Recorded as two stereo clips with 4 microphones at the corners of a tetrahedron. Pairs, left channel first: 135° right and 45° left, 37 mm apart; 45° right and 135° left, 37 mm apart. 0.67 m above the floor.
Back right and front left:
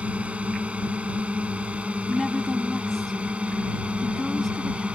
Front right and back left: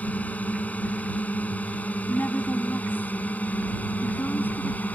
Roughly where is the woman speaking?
Ahead right.